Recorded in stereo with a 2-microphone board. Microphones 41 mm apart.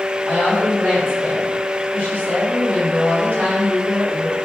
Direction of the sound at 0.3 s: 55° right (ahead or behind).